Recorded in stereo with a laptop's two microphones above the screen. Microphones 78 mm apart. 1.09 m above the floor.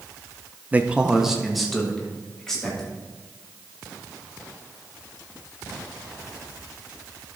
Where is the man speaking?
20° right (ahead or behind), 0.6 m; by 2.9 s 10° left (ahead or behind), 2.5 m.